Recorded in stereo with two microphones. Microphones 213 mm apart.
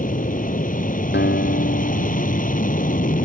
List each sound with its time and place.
0.0 s an aircraft: 40° left (ahead or behind)
1.1 s a guitar: 55° left (ahead or behind)